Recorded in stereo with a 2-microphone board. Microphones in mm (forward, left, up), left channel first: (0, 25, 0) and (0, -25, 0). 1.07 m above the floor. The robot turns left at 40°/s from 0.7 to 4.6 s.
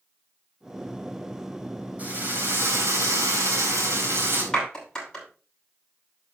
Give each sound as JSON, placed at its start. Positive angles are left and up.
{"t": 2.0, "sound": "a drill", "azimuth_deg": -35, "distance_m": 4.0}
{"t": 4.5, "sound": "a clap", "side_deg": 10, "distance_m": 7.5}